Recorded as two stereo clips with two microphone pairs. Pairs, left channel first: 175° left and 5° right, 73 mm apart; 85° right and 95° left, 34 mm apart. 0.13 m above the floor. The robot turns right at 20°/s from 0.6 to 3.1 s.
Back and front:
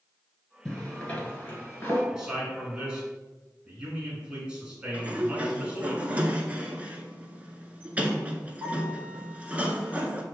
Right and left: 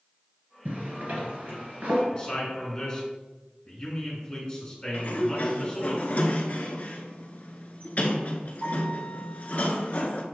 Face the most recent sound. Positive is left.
turn(degrees=-65)